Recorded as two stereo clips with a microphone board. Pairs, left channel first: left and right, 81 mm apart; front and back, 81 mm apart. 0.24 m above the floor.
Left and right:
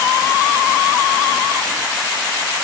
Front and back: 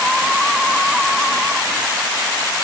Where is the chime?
No chime in this recording.